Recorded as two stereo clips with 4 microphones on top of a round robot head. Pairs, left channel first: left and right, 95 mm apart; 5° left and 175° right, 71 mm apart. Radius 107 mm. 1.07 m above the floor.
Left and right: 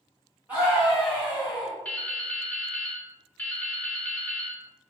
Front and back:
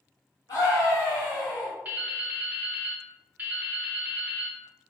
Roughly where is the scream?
Ahead.